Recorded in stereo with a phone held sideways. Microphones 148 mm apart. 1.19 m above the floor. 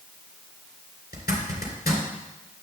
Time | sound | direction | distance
1.1 | a zipper | 80° left | 2.5 m